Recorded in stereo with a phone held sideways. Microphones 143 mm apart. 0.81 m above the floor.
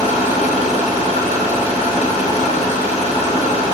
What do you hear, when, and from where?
0.0 s an engine running: 50° left (ahead or behind), 2.5 m